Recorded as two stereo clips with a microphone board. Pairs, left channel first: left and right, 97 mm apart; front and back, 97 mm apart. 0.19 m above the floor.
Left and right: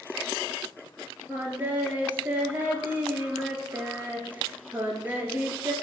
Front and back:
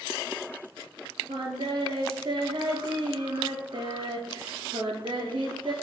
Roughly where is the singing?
Behind.